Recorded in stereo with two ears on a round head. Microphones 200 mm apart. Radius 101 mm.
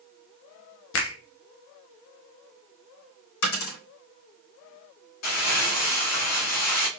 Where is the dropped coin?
70° left (ahead or behind), 3.5 m.